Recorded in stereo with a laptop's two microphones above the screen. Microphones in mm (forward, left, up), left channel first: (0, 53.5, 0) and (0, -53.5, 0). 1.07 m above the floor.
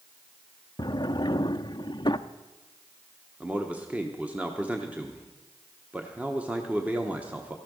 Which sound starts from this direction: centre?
A man speaking, at 3.4 s.